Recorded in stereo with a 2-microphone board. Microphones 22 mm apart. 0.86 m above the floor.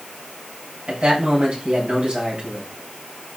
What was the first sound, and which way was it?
A man speaking, 70° right (ahead or behind).